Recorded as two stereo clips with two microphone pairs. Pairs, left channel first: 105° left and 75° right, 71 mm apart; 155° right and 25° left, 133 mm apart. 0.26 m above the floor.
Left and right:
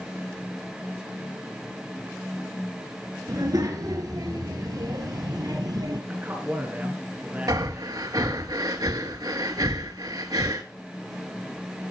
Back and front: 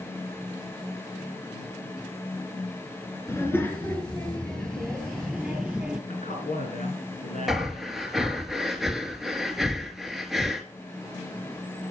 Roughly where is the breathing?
Ahead right.